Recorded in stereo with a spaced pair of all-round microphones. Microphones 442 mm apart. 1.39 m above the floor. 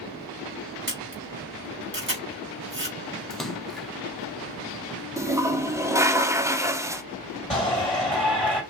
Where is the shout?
Centre (ahead or behind), 3 m.